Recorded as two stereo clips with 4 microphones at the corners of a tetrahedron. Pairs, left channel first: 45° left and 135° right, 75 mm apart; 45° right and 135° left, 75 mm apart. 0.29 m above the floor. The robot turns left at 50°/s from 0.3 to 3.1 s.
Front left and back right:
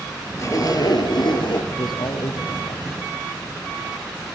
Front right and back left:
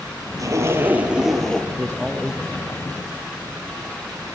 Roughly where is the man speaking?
Ahead left.